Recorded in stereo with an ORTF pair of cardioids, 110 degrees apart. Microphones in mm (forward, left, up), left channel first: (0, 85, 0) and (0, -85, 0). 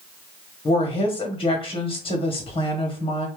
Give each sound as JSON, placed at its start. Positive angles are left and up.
{"t": 0.7, "sound": "a woman speaking", "azimuth_deg": 30, "distance_m": 1.0}